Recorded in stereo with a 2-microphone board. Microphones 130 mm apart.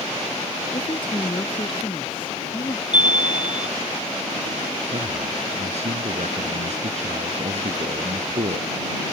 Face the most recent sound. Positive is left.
turn(degrees=-60)  # may be behind; listen again after turning